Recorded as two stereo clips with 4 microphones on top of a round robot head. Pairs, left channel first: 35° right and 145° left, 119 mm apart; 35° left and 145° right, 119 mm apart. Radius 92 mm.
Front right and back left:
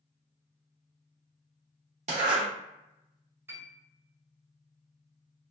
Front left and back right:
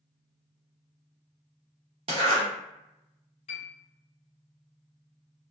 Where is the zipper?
175° left, 0.7 m.